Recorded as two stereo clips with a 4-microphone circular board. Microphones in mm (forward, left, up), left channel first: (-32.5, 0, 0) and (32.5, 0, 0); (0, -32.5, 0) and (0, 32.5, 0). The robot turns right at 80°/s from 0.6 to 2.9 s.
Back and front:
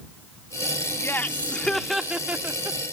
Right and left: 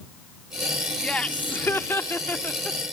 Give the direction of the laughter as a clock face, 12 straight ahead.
5 o'clock.